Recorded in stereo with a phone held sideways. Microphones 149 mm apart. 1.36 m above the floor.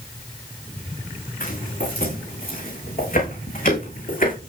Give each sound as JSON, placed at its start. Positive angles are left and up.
{"t": 1.4, "sound": "footsteps", "side_deg": 80, "distance_m": 7.0}